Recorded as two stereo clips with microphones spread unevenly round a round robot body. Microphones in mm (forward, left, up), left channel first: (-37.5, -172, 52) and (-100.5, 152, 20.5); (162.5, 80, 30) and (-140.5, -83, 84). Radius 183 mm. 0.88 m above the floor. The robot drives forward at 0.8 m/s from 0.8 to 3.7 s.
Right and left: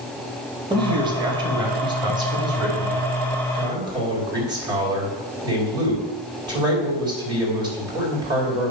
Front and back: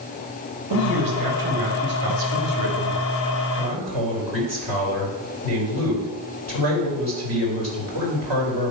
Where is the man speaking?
175° left, 1.6 m; by 8.7 s straight behind, 4 m.